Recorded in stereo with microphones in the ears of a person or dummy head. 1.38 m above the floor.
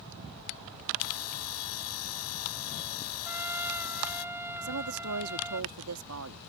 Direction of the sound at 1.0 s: 80° left.